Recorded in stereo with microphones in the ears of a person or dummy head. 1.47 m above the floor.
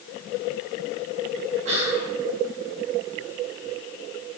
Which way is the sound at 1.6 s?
40° right (ahead or behind).